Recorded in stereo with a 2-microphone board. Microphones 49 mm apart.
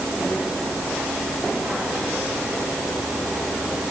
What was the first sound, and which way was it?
Only background noise.